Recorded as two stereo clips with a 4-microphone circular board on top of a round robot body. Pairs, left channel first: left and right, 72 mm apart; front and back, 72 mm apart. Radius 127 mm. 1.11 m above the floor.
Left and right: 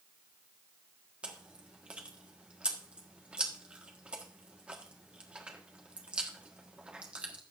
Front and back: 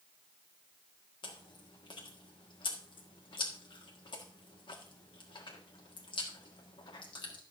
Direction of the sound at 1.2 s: 15° right.